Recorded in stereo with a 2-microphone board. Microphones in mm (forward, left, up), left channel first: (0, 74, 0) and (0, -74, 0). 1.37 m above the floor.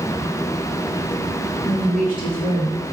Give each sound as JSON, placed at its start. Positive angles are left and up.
{"t": 1.6, "sound": "a woman speaking", "side_deg": 75, "distance_m": 2.0}